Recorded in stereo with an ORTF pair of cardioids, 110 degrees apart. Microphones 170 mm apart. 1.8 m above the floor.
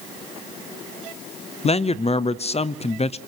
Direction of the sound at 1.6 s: 35° left.